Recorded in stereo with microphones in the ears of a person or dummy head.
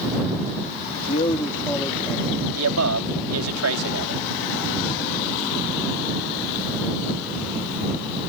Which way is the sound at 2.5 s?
85° right.